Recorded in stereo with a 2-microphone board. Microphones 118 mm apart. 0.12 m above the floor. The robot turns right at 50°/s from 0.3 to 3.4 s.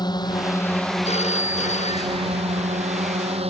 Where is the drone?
140° left; by 3.5 s 65° right.